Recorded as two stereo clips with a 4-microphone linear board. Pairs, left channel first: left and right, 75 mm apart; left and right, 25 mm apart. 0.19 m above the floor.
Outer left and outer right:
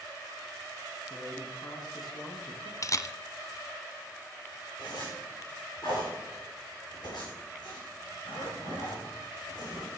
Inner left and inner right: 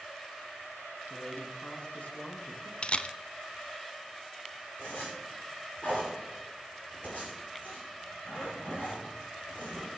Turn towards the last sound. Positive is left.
turn(degrees=75)  # may be behind; listen again after turning